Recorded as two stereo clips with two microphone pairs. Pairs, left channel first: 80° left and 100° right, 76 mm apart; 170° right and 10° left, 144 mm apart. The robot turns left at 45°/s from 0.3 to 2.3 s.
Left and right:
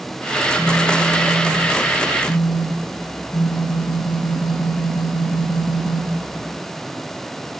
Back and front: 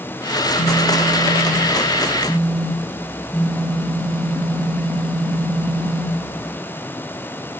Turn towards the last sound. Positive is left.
turn(degrees=110)